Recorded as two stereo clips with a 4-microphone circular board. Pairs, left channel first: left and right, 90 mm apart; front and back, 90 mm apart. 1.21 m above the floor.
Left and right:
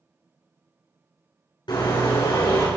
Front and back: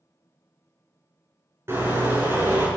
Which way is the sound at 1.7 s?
120° left.